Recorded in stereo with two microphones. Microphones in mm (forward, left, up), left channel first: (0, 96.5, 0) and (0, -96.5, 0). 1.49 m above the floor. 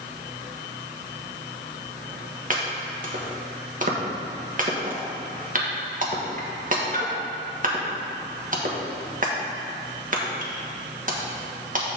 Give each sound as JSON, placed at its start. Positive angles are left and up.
{"t": 2.5, "sound": "chopping", "side_deg": -45, "distance_m": 1.2}